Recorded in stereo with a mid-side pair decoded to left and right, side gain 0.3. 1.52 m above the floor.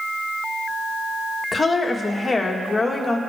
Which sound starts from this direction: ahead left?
A woman speaking, at 1.5 s.